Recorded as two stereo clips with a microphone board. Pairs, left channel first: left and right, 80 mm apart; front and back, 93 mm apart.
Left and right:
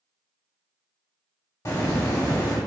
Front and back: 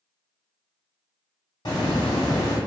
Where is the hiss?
40° left, 0.8 m.